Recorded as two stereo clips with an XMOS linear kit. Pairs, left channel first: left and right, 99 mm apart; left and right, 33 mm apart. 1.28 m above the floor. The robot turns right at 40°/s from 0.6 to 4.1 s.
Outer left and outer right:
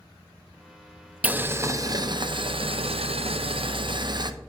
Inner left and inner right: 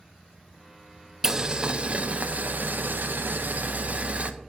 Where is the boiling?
165° right, 0.6 m; by 4.3 s 50° right, 0.6 m.